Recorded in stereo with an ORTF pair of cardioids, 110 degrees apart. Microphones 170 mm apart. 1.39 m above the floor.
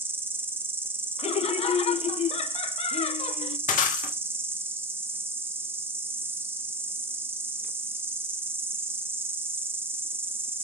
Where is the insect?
15° right, 0.8 m.